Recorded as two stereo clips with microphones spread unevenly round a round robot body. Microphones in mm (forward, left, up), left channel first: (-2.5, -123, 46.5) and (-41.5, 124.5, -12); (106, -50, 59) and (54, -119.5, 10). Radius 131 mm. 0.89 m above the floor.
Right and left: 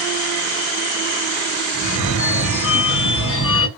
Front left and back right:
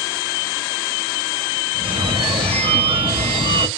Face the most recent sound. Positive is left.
turn(degrees=-120)